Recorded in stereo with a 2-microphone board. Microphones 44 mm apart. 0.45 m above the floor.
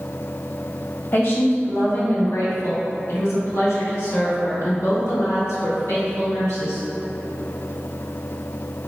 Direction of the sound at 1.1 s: 55° left (ahead or behind).